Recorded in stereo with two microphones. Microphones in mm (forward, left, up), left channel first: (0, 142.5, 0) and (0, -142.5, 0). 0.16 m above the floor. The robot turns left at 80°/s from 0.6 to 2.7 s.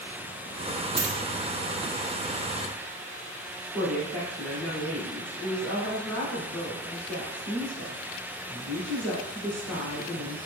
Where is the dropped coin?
45° right (ahead or behind), 0.9 m.